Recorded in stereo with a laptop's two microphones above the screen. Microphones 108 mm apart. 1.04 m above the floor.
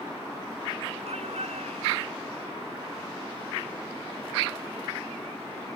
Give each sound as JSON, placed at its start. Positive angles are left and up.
{"t": 1.1, "sound": "a shout", "side_deg": -85}